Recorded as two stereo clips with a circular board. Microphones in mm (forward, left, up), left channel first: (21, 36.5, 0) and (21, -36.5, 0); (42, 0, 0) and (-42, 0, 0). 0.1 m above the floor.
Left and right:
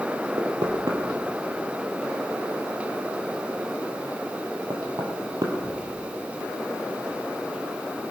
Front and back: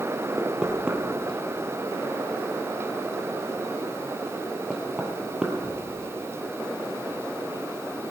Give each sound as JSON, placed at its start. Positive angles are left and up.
{"t": 0.4, "sound": "knocking", "azimuth_deg": -100, "distance_m": 2.0}